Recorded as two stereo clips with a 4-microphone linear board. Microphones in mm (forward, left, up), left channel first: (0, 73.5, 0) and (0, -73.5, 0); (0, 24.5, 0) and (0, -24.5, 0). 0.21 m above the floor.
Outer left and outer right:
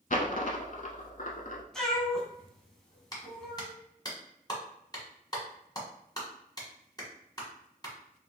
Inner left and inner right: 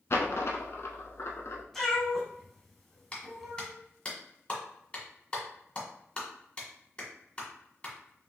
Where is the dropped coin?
65° left (ahead or behind), 0.6 m.